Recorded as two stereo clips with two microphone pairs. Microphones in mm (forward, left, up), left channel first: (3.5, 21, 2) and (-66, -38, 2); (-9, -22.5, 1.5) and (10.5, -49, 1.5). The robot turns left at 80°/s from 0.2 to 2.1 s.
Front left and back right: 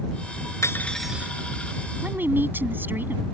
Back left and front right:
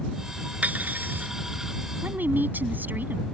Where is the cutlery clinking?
15° right; by 1.3 s 70° right.